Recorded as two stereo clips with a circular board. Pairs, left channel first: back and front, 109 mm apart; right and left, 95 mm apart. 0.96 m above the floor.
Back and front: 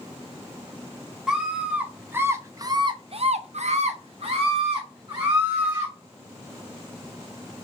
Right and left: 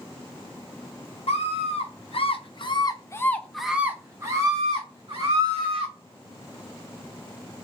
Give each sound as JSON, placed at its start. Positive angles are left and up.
{"t": 1.3, "sound": "a scream", "azimuth_deg": -85, "distance_m": 1.2}